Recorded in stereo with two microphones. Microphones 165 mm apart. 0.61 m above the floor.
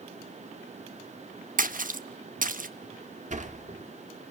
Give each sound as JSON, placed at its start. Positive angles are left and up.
{"t": 1.6, "sound": "a splash", "side_deg": -55, "distance_m": 1.0}
{"t": 3.3, "sound": "a sliding door", "side_deg": -50, "distance_m": 1.6}